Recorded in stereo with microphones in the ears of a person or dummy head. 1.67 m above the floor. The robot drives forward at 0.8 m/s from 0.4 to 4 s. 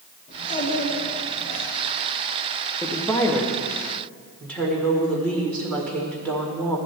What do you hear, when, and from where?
0.3 s a child speaking: 45° left (ahead or behind), 3 m; by 1.6 s 65° left (ahead or behind), 2.5 m
2.8 s a woman speaking: 20° left (ahead or behind), 0.6 m; by 6.8 s 10° left (ahead or behind), 1.5 m